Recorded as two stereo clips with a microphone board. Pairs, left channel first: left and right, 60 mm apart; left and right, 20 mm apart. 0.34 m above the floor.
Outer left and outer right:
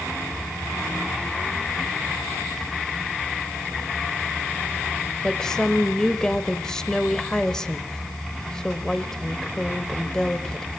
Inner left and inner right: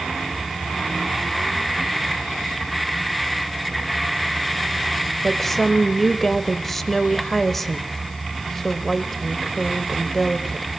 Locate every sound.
5.2 s a woman speaking: 10° left (ahead or behind), 1.1 m